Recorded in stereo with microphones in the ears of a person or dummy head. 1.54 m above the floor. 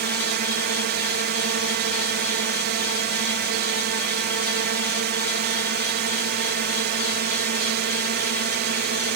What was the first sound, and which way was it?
A drone, 50° right (ahead or behind).